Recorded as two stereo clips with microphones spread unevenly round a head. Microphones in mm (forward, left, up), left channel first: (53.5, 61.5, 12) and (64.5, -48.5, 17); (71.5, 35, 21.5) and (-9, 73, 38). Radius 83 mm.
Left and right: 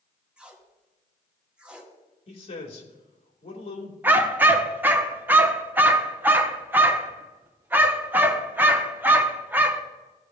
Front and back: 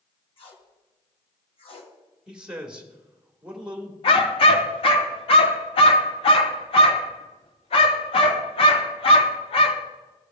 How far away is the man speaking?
About 2 m.